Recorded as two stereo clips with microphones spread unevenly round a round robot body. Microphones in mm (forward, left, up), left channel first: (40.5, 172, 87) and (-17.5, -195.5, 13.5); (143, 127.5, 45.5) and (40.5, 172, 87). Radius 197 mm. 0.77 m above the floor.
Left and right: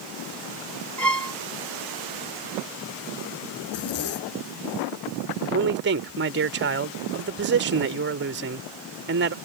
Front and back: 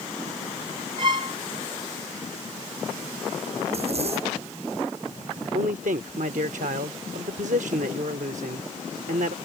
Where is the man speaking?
155° right.